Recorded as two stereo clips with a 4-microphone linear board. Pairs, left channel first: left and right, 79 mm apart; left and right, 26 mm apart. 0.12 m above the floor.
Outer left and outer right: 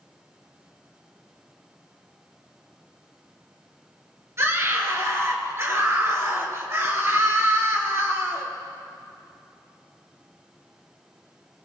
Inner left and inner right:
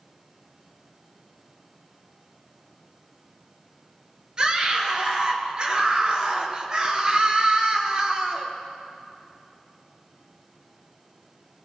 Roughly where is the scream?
Right.